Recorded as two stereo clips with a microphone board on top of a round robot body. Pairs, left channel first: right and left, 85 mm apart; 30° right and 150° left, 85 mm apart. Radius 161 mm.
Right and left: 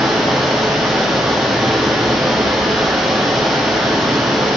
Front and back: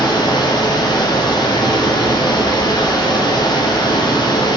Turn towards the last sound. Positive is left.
turn(degrees=0)